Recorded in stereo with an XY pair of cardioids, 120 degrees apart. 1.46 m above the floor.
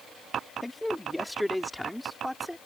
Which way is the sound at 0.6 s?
5° left.